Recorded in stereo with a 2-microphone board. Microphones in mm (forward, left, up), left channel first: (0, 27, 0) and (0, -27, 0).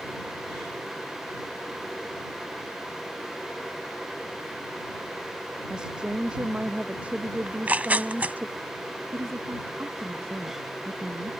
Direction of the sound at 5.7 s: 15° right (ahead or behind).